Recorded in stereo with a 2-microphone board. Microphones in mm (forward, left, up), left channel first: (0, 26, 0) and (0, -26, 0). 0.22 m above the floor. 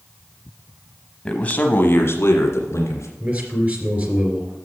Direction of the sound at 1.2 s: 15° left (ahead or behind).